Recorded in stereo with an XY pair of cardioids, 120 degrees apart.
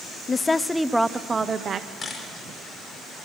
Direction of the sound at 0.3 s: 25° left.